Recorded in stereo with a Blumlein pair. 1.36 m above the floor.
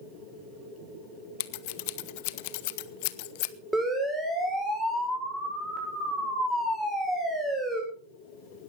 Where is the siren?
10° right, 7 m.